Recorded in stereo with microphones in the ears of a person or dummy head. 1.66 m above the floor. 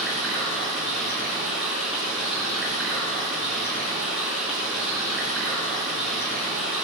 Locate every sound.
0.0 s running water: centre (ahead or behind), 4.5 m